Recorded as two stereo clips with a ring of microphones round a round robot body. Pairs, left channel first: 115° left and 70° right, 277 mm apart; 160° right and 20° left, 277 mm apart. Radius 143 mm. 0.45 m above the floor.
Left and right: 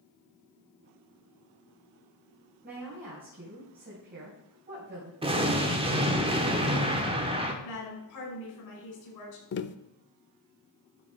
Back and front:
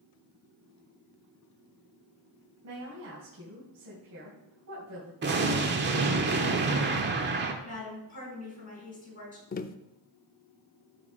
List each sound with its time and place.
2.6 s a woman speaking: 10° right, 3 m
5.2 s an explosion: 5° right, 1.3 m
7.6 s a woman speaking: 140° left, 5 m
9.5 s tapping: 150° left, 0.5 m